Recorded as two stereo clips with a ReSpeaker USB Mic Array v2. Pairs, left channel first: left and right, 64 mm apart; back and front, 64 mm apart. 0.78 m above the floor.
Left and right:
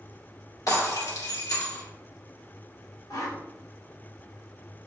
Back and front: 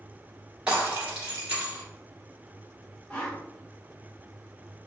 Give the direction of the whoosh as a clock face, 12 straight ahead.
9 o'clock.